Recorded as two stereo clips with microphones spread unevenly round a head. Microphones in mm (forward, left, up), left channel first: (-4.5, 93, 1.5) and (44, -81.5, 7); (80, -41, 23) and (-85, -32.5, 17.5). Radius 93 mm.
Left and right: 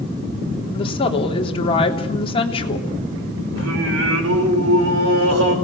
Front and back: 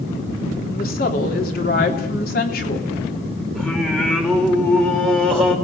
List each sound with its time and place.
0.7 s a woman speaking: 45° left, 3.5 m
3.5 s singing: 85° right, 5.5 m